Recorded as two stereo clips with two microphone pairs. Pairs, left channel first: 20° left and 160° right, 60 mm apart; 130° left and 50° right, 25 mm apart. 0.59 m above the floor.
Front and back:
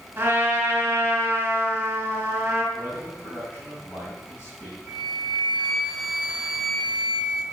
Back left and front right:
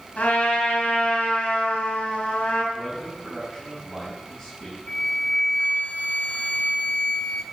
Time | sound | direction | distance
0.2 | a trumpet | 140° left | 4 m
2.7 | a man speaking | 80° left | 4.5 m
4.9 | a flute | 125° left | 1.4 m